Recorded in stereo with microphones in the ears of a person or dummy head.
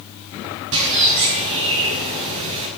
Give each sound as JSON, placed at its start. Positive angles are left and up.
{"t": 0.7, "sound": "a bird", "side_deg": -65, "distance_m": 6.0}